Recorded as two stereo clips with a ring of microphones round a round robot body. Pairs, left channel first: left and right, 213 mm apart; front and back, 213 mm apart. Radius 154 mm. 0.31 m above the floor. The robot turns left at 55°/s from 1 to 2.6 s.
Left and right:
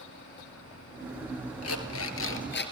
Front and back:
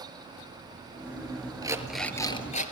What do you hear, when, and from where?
1.6 s an alarm clock: 110° left, 3 m; by 2.7 s 55° left, 3 m